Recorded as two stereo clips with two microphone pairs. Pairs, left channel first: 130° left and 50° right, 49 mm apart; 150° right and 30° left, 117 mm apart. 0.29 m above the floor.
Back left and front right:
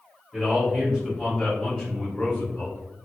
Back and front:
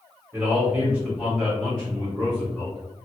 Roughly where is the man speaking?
Ahead.